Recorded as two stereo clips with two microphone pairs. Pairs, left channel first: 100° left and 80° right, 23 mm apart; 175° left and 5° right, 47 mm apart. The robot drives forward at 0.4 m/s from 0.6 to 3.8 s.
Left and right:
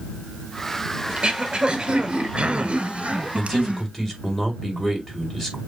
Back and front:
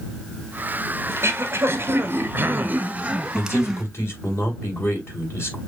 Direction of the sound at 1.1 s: 25° right.